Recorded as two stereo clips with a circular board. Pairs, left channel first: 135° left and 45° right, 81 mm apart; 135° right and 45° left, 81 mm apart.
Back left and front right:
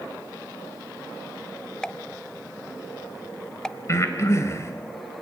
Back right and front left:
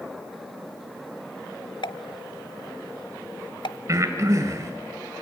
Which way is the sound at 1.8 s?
145° right.